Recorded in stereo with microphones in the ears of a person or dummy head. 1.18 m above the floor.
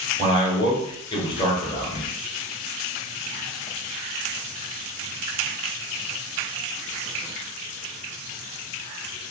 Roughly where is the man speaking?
Left.